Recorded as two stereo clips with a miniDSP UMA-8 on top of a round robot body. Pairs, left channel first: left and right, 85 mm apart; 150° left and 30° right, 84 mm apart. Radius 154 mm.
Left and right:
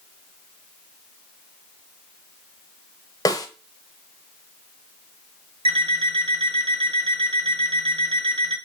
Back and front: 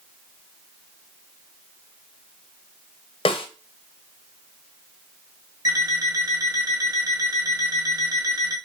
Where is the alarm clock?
75° right, 1.7 m.